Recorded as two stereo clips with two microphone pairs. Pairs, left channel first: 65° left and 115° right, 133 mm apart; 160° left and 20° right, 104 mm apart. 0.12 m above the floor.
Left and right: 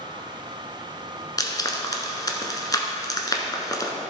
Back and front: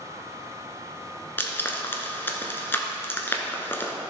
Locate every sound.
1.4 s frying: 105° left, 1.1 m